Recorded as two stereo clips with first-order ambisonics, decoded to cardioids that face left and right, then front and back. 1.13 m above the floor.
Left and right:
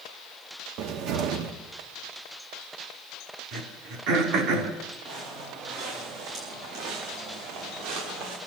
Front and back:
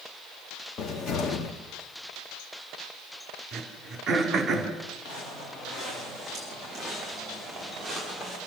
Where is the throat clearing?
120° right, 3.5 m.